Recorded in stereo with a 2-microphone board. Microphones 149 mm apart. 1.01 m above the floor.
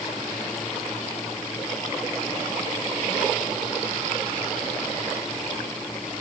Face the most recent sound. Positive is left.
No sound to turn to.